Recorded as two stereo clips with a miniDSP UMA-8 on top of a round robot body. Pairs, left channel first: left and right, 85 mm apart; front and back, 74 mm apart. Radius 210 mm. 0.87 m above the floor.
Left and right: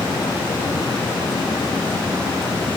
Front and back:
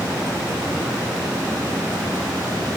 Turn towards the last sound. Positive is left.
No sound to turn to.